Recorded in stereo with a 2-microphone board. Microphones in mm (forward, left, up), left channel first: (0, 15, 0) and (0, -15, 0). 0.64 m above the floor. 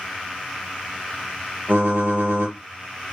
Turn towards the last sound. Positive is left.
turn(degrees=-65)  # may be behind; listen again after turning